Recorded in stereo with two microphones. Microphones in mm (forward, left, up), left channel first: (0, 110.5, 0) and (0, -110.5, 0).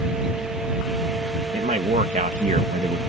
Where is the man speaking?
35° right (ahead or behind).